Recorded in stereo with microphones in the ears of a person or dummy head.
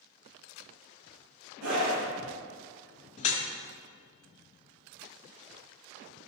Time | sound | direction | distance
1.6 | a scream | 80° right | 2 m
3.2 | dripping | 40° left (ahead or behind) | 1.9 m